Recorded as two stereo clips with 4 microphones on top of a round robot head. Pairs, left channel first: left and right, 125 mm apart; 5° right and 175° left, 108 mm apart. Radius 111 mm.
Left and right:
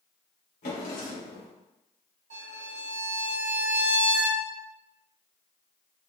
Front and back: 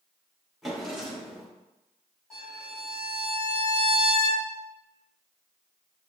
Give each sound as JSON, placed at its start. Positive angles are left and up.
{"t": 0.6, "sound": "a drawer", "azimuth_deg": 85, "distance_m": 1.7}
{"t": 2.3, "sound": "a violin", "azimuth_deg": -95, "distance_m": 1.4}